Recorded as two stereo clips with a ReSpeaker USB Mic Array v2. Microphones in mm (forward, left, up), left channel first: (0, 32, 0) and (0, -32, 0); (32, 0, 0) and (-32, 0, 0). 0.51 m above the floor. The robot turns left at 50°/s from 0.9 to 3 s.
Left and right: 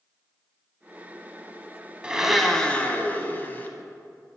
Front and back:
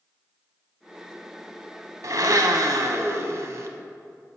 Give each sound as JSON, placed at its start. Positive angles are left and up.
{"t": 2.0, "sound": "a blender", "azimuth_deg": -165, "distance_m": 0.6}